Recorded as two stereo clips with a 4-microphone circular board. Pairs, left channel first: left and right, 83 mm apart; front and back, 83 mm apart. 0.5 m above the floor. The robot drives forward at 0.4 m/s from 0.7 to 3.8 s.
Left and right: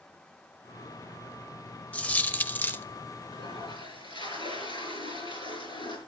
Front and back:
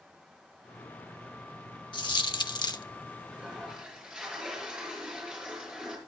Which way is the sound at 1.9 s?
20° left.